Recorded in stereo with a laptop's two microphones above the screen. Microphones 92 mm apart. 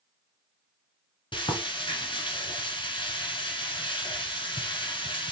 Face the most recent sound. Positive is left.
turn(degrees=65)  # may be behind; listen again after turning